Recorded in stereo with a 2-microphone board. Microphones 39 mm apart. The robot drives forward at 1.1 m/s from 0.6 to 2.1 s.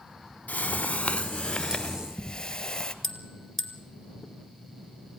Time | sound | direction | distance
0.5 | a whoosh | 45° left (ahead or behind) | 0.8 m
3.0 | a bell | 5° left (ahead or behind) | 2 m